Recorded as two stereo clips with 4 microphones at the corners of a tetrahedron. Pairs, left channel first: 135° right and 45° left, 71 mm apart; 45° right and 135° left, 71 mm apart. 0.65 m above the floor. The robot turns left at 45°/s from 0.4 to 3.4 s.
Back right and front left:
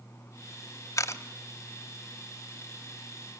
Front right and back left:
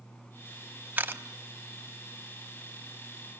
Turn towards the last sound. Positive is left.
turn(degrees=85)